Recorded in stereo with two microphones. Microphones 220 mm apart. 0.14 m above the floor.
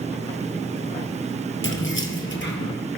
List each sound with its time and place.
1.6 s keys jangling: 65° left (ahead or behind), 2 m; by 2.8 s 55° left (ahead or behind), 2.5 m